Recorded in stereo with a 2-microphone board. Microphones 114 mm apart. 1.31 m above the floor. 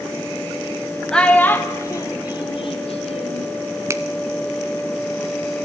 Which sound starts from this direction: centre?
A child speaking, at 1.1 s.